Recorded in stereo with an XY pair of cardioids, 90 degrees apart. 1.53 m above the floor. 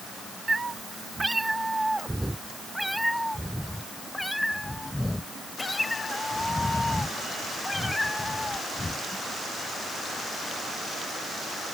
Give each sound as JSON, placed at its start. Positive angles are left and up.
{"t": 0.5, "sound": "a cat meowing", "azimuth_deg": -30}